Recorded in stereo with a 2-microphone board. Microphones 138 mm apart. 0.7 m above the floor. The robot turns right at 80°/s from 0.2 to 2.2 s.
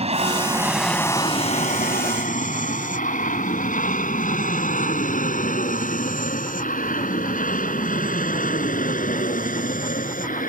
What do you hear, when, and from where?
0.0 s an aircraft: 45° right (ahead or behind); by 10.5 s 75° left (ahead or behind)